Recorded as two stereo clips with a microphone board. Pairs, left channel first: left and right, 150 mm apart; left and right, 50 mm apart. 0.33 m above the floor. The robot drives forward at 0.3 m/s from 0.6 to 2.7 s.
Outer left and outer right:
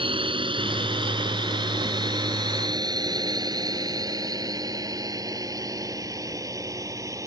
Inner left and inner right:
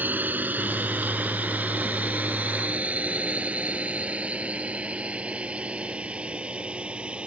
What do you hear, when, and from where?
0.0 s a drone: 35° right (ahead or behind); by 7.3 s 20° right (ahead or behind)